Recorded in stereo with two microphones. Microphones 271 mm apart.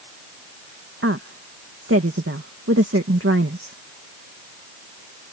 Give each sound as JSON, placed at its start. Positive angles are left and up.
{"t": 1.0, "sound": "a woman speaking", "side_deg": -50}